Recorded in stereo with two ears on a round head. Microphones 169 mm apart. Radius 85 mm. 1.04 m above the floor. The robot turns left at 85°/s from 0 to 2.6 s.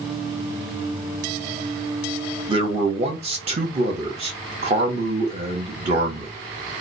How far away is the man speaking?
About 0.8 m.